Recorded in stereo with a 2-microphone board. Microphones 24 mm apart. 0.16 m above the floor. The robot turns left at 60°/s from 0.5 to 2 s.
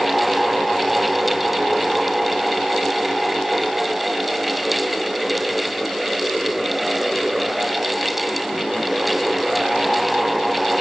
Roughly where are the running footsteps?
I don't hear running footsteps.